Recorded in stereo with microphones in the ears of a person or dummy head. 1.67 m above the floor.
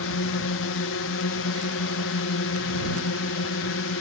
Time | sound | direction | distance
0.0 | a drone | 65° left (ahead or behind) | ?